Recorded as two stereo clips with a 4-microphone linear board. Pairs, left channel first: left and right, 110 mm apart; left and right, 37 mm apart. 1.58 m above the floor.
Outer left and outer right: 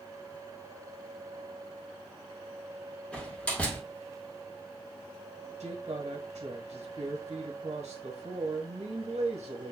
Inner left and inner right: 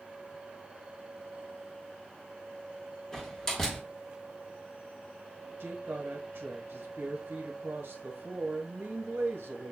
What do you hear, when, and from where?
3.1 s a door slam: 10° left (ahead or behind), 1.6 m
5.6 s a woman speaking: 85° right, 1.4 m